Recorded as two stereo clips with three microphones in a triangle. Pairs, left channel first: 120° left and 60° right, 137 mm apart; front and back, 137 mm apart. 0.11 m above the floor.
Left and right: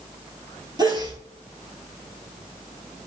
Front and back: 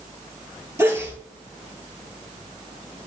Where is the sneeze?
115° right, 2.5 m.